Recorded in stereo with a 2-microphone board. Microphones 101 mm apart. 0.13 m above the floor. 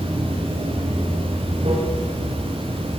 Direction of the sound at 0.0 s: 85° right.